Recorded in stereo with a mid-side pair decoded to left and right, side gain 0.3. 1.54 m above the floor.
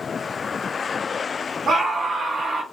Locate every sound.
1.7 s a scream: 65° right, 0.9 m